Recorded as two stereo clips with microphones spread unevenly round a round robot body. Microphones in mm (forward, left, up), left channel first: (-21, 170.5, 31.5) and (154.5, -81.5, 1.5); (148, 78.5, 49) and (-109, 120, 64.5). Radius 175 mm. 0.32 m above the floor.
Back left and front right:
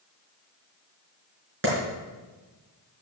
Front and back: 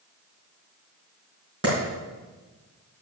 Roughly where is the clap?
Behind right.